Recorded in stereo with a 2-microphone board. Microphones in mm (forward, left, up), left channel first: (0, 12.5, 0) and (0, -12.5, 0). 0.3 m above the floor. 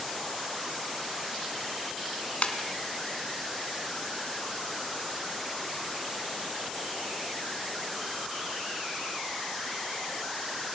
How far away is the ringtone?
About 2 m.